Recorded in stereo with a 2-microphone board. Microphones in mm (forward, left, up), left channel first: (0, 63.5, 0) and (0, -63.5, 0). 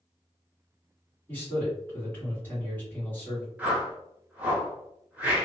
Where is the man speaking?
15° left (ahead or behind), 1.8 m.